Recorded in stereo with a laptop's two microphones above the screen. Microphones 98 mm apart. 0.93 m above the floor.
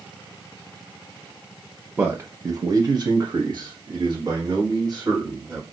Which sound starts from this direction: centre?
A man speaking, at 2.0 s.